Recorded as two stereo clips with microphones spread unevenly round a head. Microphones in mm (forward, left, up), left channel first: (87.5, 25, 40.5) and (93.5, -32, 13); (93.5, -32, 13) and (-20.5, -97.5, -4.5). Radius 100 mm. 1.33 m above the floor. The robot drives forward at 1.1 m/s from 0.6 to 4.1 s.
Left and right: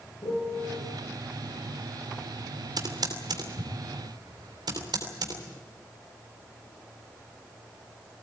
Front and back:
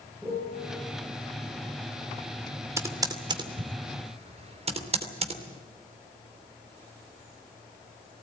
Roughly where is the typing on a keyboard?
Right.